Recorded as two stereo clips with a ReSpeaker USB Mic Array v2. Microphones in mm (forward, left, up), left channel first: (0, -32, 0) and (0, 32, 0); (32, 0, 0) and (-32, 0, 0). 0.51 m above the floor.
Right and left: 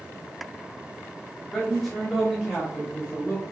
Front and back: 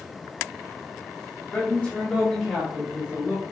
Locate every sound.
1.5 s a man speaking: 5° right, 1.1 m; by 3.4 s 170° left, 1.2 m